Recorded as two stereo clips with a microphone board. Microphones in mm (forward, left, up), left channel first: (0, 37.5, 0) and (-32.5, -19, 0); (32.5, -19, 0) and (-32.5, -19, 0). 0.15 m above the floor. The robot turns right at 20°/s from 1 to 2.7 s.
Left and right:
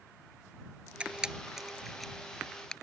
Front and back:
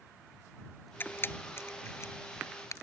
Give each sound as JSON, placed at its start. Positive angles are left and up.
{"t": 1.0, "sound": "a camera shutter", "azimuth_deg": -50}